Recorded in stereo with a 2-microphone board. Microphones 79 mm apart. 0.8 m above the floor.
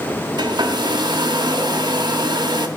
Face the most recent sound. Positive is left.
turn(degrees=-65)  # may be behind; listen again after turning